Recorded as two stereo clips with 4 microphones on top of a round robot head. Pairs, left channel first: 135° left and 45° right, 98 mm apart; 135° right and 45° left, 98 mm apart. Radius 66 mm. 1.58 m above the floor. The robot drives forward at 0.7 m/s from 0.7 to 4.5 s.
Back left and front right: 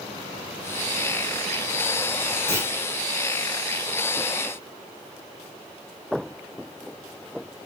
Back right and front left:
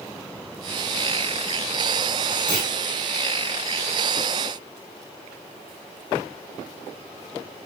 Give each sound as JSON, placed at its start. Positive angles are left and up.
{"t": 2.5, "sound": "a clunk", "azimuth_deg": 180, "distance_m": 2.5}